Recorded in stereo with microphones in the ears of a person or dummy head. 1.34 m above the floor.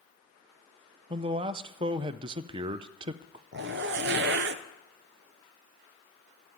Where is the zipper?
55° right (ahead or behind), 0.7 m.